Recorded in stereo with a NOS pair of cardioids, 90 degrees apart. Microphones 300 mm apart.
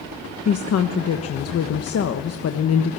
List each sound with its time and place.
0.5 s a woman speaking: 55° left, 1.3 m